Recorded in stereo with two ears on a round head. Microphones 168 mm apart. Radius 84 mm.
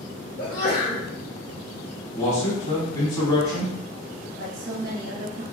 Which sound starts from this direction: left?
A sneeze, at 0.4 s.